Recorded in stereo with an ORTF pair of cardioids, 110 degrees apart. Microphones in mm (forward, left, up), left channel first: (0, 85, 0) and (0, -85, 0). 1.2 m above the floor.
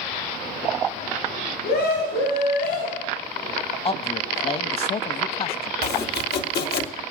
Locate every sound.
1.6 s a scream: 70° left, 7.5 m; by 3.1 s 80° left, 7.5 m
3.9 s a man speaking: 30° left, 1.5 m
5.8 s chopping: 65° left, 1.9 m